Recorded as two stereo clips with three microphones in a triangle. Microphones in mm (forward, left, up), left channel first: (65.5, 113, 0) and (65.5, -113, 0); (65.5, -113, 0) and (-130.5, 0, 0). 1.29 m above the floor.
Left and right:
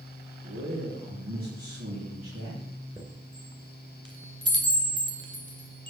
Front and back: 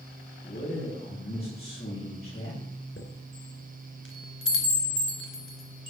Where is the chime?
25° right, 2.5 m.